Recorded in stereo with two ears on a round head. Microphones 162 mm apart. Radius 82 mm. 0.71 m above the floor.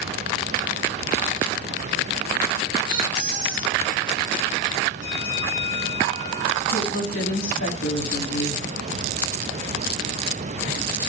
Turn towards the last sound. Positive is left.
turn(degrees=75)  # may be behind; listen again after turning